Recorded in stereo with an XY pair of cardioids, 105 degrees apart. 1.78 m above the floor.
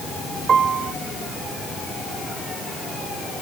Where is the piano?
50° right.